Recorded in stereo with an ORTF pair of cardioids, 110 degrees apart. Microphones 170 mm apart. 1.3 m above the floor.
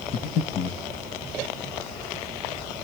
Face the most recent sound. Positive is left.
turn(degrees=60)